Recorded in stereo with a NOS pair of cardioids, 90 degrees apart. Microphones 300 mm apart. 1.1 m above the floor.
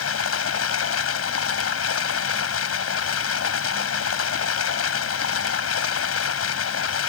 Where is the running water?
50° left.